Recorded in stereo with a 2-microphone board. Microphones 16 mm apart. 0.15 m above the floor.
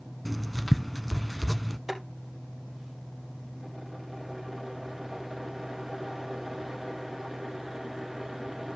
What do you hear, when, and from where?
0.2 s writing: 5° left (ahead or behind), 0.7 m
1.9 s boiling: 20° right (ahead or behind), 4 m